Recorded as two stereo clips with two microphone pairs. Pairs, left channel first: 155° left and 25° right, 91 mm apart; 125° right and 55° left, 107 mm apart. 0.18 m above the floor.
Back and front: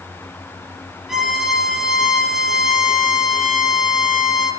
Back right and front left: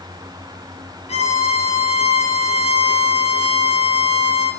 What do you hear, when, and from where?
1.1 s a violin: 110° right, 3.5 m